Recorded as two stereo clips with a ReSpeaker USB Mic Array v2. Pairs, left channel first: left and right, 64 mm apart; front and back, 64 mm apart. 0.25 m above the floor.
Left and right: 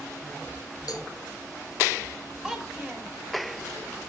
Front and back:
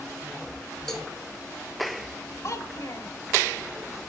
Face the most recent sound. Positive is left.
turn(degrees=-10)